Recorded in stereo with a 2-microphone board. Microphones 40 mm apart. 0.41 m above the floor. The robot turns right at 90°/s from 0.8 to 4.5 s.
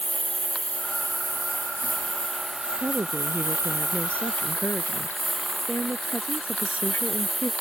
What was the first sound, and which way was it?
A lawn mower, 30° left.